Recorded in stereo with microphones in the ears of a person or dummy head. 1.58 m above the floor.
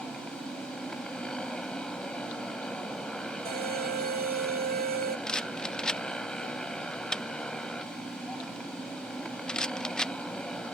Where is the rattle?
Centre (ahead or behind).